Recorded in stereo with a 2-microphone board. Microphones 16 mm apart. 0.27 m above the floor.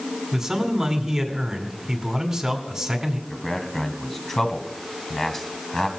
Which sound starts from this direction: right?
A man speaking, at 0.3 s.